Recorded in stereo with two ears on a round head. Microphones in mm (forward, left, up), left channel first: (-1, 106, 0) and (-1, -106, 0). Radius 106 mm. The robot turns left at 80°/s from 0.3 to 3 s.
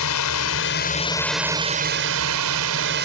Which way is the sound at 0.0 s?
85° left.